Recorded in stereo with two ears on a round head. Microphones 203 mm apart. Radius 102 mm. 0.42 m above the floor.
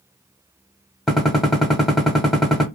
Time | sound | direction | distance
1.1 | a gunshot | centre (ahead or behind) | 1.0 m